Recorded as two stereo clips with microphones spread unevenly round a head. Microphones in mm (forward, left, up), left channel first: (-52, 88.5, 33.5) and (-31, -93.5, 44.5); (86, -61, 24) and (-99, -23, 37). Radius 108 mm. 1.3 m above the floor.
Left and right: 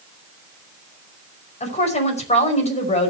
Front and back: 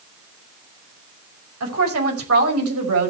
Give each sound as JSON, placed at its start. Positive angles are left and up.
{"t": 1.6, "sound": "a woman speaking", "azimuth_deg": 150, "distance_m": 5.5}